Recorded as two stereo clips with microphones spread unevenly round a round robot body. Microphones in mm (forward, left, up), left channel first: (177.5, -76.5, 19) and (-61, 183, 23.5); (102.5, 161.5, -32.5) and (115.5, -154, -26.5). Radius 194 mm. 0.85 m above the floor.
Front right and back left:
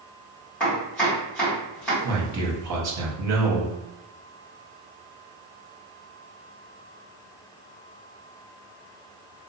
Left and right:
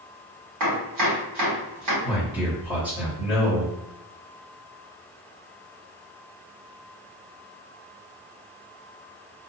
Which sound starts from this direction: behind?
A man speaking, at 2.0 s.